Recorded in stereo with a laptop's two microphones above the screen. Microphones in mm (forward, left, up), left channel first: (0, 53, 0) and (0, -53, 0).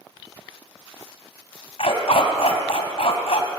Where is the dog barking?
65° left (ahead or behind), 2.5 m.